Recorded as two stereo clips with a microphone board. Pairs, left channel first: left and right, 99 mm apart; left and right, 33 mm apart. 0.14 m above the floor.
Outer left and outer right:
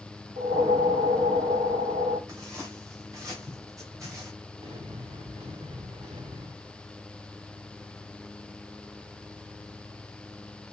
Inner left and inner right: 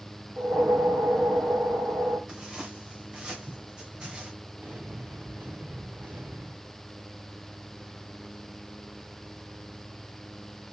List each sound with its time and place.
0.4 s a whoosh: 70° right (ahead or behind), 2.5 m
2.3 s footsteps: 35° right (ahead or behind), 6.5 m; by 4.3 s 30° right (ahead or behind), 7.5 m
4.6 s an explosion: 65° right (ahead or behind), 5 m